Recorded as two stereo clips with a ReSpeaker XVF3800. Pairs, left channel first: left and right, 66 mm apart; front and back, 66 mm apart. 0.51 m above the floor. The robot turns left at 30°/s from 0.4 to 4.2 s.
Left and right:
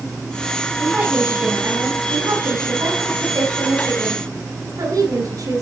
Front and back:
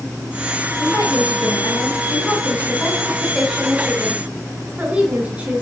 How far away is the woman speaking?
About 7 m.